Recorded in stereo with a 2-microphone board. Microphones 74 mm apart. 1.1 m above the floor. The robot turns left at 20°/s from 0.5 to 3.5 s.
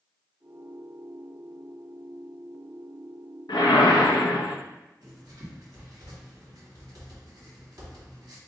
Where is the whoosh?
75° left (ahead or behind), 0.6 m.